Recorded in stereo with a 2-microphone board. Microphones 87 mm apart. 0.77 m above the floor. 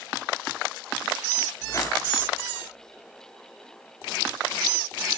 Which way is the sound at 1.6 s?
40° left (ahead or behind).